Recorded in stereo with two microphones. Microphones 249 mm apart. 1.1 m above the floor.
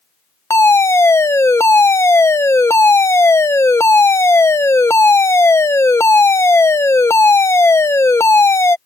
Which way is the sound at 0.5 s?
10° left (ahead or behind).